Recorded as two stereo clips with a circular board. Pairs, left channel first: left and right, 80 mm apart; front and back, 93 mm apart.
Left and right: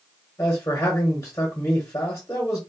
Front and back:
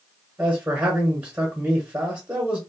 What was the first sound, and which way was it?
A man speaking, 120° left.